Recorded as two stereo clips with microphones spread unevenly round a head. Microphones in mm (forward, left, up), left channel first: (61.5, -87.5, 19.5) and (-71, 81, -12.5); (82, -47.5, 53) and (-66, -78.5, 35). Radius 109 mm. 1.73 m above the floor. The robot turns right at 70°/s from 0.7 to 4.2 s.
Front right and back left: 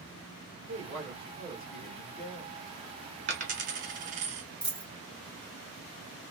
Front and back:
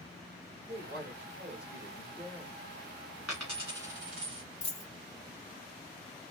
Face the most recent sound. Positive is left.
turn(degrees=20)